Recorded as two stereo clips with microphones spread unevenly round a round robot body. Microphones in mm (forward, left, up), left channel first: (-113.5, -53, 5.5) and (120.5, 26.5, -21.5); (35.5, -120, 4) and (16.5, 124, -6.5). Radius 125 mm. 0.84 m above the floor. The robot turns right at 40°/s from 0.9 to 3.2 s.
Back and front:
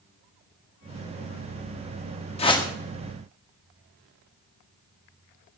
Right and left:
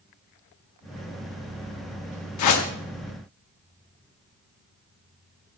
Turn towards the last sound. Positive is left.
turn(degrees=-60)